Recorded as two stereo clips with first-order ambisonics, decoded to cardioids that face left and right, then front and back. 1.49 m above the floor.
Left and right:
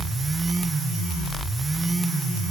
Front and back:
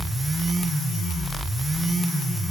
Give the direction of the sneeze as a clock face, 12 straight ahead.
I don't hear a sneeze.